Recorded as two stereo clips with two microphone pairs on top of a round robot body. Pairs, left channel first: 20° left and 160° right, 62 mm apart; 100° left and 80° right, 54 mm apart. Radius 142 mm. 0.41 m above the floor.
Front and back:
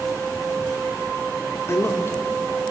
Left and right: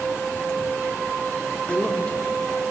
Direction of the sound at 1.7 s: 35° left.